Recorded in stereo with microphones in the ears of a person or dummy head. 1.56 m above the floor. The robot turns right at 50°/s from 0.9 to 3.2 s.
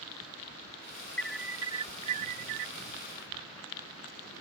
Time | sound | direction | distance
1.2 | an alarm | 170° left | ?